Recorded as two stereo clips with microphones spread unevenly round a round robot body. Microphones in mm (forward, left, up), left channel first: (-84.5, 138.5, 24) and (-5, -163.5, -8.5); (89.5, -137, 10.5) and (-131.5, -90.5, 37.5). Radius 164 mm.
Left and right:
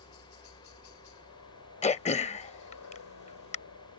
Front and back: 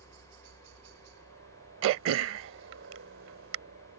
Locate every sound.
0.0 s a helicopter: 130° left
1.8 s throat clearing: 170° left